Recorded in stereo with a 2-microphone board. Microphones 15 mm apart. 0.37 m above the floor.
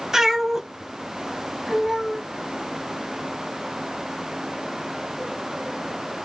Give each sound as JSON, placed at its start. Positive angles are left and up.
{"t": 0.1, "sound": "a cat meowing", "side_deg": -30, "distance_m": 1.7}